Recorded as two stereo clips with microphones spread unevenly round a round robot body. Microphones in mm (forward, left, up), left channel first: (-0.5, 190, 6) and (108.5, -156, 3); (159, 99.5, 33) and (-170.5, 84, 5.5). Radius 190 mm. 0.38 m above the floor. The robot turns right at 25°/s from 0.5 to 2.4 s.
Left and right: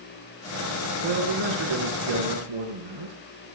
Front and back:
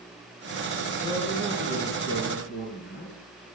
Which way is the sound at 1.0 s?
95° right.